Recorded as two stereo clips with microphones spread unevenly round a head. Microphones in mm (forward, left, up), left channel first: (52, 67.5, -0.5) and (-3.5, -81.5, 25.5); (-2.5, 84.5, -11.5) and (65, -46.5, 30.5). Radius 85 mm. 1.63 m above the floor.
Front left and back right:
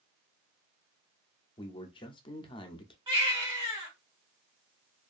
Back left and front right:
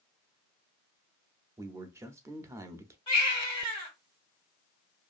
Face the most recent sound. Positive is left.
turn(degrees=-165)